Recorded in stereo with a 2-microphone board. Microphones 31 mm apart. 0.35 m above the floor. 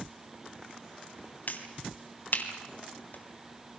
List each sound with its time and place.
1.5 s a finger snap: 60° left (ahead or behind), 3 m